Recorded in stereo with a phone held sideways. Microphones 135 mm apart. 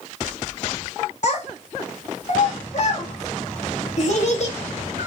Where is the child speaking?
50° left (ahead or behind), 1.2 m.